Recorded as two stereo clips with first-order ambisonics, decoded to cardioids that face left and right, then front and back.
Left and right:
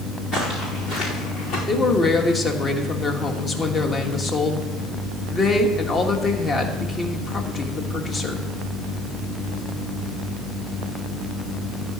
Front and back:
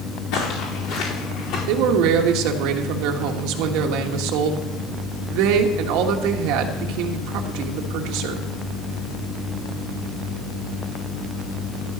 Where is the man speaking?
160° left, 1.4 m.